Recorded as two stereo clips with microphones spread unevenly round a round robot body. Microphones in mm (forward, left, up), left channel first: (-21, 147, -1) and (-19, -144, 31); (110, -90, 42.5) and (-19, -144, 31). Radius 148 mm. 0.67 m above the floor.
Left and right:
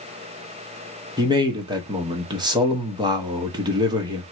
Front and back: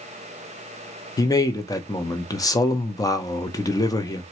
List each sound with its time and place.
1.2 s a man speaking: 20° right, 0.7 m